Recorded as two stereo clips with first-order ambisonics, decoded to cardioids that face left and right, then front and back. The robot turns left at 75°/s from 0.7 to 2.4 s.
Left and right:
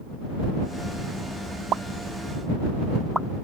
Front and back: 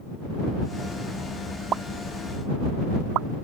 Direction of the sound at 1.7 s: 130° right.